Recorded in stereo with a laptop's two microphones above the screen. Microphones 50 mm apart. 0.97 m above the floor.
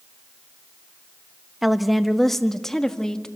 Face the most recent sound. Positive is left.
turn(degrees=15)  # may be behind; listen again after turning